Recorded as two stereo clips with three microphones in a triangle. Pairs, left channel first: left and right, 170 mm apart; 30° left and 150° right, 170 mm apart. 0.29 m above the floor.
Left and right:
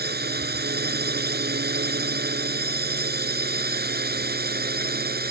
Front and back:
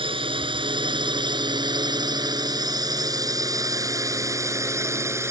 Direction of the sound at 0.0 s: 90° right.